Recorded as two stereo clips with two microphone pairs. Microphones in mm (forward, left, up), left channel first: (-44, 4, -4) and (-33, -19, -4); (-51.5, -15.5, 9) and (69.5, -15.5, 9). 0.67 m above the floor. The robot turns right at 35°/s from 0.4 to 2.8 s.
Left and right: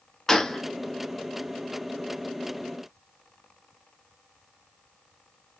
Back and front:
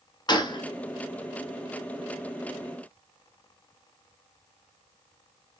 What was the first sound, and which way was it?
A gunshot, 170° left.